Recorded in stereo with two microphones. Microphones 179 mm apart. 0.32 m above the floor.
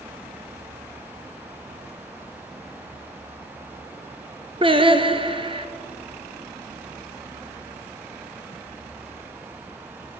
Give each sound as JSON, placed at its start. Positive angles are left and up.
{"t": 4.6, "sound": "singing", "side_deg": -30, "distance_m": 0.9}